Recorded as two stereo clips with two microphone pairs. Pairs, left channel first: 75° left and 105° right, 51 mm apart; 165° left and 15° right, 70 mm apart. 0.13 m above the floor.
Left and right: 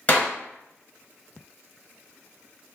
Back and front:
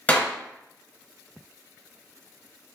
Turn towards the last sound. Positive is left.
turn(degrees=110)